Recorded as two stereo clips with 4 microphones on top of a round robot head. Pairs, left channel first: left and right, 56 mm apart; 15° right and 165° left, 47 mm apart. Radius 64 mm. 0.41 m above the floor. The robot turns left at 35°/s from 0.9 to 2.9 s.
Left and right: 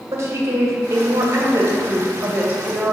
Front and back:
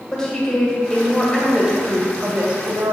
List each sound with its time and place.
0.1 s a woman speaking: 85° right, 2.0 m; by 2.9 s 155° right, 2.0 m